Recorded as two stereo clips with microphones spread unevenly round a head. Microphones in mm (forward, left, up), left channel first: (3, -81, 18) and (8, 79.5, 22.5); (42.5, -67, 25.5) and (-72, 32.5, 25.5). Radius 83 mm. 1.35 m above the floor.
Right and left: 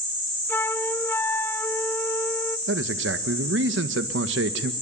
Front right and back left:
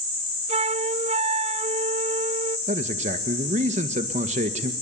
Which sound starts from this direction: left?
A man speaking, at 2.7 s.